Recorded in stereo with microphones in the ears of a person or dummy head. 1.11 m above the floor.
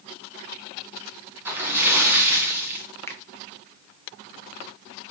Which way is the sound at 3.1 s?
10° left (ahead or behind).